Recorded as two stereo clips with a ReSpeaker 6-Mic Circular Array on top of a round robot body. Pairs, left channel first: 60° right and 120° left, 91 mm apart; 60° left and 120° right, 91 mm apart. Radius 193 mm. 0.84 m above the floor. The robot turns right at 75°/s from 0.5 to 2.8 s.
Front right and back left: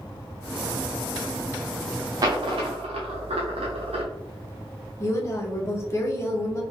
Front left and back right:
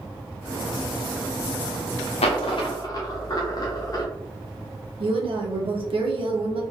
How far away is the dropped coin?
About 0.6 m.